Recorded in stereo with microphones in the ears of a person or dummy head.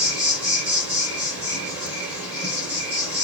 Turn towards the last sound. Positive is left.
turn(degrees=-10)  # may be behind; listen again after turning